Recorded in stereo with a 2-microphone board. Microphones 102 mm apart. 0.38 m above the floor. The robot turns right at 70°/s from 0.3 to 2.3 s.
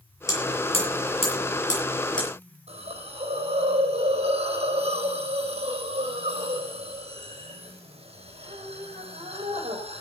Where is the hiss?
90° right, 4 m.